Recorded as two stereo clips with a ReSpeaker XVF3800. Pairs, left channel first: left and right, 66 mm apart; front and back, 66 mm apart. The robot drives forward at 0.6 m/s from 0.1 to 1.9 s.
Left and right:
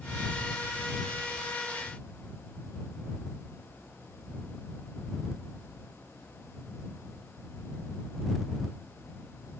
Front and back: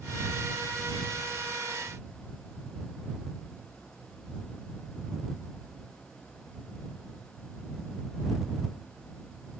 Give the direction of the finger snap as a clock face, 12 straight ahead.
No finger snap in this recording.